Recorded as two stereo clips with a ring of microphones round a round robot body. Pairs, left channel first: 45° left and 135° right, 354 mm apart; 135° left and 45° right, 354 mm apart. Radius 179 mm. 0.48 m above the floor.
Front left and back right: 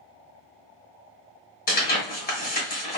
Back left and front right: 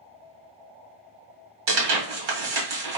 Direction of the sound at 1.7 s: 20° right.